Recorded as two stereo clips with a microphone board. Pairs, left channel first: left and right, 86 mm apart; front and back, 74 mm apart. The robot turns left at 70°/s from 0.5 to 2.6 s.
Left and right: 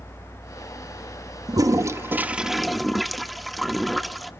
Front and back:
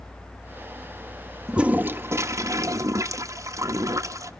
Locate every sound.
1.5 s a toilet flushing: 100° right, 0.9 m; by 4.3 s straight behind, 0.9 m